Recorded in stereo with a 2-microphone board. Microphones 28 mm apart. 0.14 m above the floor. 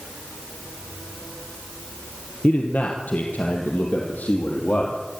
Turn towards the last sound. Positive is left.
turn(degrees=75)  # may be behind; listen again after turning